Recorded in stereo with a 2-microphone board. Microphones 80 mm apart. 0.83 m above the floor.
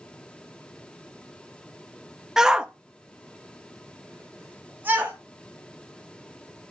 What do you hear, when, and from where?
2.4 s a shout: 5° right (ahead or behind), 0.8 m; by 5.2 s 20° right (ahead or behind), 1.3 m